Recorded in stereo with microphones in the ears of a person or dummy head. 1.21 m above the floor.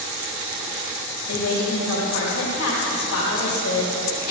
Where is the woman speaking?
80° left, 2.5 m.